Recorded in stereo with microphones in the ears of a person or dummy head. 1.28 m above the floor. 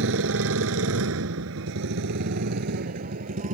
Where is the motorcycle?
75° right (ahead or behind); by 3.5 s 45° right (ahead or behind).